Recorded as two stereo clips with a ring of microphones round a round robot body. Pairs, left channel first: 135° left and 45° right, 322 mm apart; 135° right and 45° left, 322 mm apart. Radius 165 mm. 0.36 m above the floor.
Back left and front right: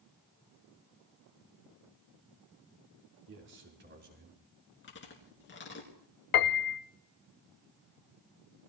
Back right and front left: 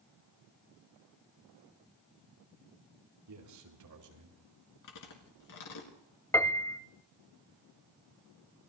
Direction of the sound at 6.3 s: 145° left.